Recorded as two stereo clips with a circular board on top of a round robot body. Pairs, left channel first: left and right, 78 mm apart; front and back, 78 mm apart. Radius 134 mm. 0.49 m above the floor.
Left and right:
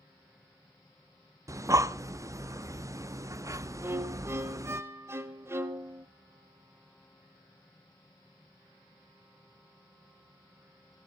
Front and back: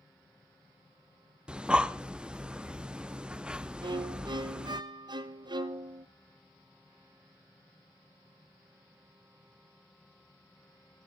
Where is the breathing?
105° right, 0.9 m.